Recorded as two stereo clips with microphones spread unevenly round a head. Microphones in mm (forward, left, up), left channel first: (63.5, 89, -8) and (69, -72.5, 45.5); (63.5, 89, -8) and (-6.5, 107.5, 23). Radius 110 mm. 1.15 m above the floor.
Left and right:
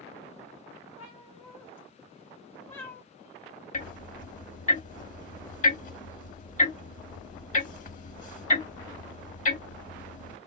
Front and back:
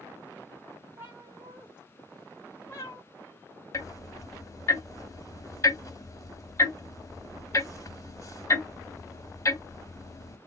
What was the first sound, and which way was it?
A cat meowing, 170° right.